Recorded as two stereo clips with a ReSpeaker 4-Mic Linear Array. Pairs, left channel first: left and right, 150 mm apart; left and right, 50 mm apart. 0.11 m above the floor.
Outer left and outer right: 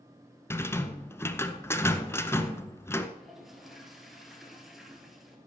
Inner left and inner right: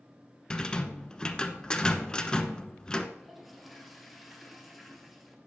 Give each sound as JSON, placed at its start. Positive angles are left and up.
{"t": 0.5, "sound": "a rattle", "side_deg": 15, "distance_m": 0.7}
{"t": 3.2, "sound": "a toilet flushing", "side_deg": 0, "distance_m": 1.5}